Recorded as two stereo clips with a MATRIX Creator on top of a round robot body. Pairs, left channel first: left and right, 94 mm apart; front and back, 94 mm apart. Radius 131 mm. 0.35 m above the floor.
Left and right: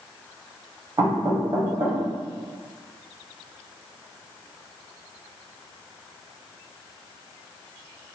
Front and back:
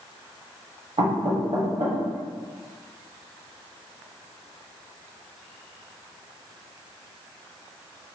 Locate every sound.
1.0 s knocking: 150° right, 1.7 m